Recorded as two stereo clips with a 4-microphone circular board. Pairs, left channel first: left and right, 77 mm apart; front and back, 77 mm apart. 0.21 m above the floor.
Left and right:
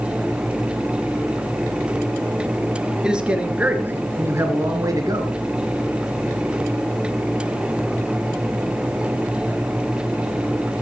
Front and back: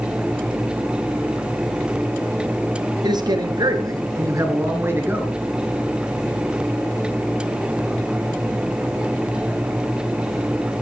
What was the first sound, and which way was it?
A man speaking, 170° right.